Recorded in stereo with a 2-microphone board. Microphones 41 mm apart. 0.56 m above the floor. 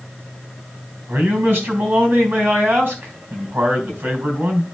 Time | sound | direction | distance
1.1 | a man speaking | 65° right (ahead or behind) | 4 m